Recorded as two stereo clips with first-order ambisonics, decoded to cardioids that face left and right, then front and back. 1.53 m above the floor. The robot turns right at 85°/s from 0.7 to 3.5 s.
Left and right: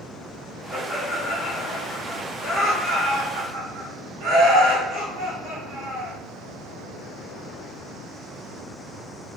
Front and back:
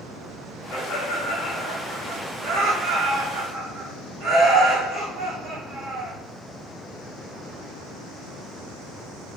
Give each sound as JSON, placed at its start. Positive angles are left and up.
{"t": 0.7, "sound": "laughter", "azimuth_deg": 0, "distance_m": 1.1}